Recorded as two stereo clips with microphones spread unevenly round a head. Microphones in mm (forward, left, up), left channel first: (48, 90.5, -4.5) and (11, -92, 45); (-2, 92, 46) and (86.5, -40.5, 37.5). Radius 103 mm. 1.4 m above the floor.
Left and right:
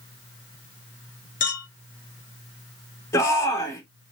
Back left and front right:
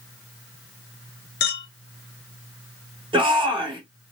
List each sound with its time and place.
1.4 s a clink: 135° left, 0.7 m
3.1 s a shout: 5° left, 1.5 m